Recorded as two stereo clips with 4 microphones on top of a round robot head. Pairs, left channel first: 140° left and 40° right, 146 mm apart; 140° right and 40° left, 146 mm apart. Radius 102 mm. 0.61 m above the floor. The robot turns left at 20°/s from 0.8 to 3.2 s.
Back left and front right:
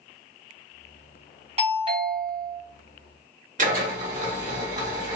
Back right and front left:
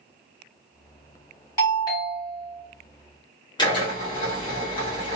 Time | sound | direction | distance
1.6 | a doorbell | 75° right | 1.5 m
3.6 | a drill | 80° right | 1.3 m